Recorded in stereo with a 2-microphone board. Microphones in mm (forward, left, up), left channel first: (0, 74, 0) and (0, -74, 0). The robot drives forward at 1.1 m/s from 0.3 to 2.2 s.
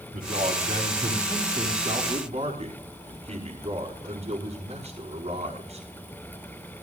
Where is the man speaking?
70° right (ahead or behind), 3.5 m; by 5.9 s 50° right (ahead or behind), 5 m.